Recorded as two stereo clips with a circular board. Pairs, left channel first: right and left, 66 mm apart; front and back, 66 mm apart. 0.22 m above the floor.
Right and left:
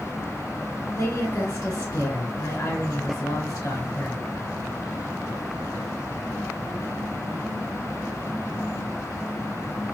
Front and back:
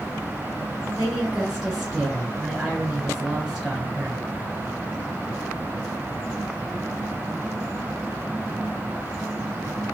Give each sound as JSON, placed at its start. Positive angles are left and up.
{"t": 0.9, "sound": "a woman speaking", "azimuth_deg": -105, "distance_m": 3.5}